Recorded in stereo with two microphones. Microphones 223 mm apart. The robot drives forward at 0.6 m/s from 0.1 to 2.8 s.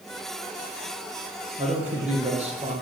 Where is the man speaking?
30° right (ahead or behind), 4.5 m.